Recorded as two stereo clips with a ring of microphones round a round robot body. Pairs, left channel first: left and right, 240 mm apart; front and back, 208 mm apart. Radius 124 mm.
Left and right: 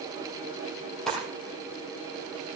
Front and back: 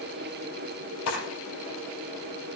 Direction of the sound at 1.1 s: Straight ahead.